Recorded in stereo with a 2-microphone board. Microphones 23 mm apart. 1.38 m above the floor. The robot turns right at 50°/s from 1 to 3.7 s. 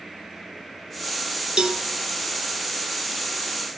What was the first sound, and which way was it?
A cowbell, 40° right (ahead or behind).